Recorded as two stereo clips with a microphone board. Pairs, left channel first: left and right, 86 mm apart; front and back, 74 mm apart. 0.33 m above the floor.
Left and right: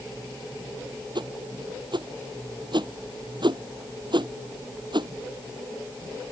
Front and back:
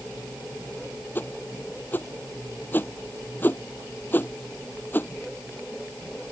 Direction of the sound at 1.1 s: 60° right.